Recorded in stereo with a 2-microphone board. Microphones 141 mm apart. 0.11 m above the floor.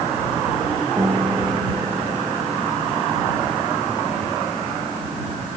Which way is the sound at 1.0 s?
25° right (ahead or behind).